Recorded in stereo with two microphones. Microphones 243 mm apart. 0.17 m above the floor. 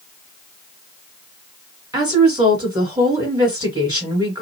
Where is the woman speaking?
15° right (ahead or behind), 2 m.